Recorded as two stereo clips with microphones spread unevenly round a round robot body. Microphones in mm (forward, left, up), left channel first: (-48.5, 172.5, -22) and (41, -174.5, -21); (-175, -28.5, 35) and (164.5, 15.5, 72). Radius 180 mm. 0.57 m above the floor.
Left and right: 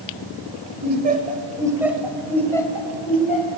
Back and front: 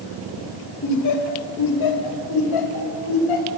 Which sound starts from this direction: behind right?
Laughter, at 0.8 s.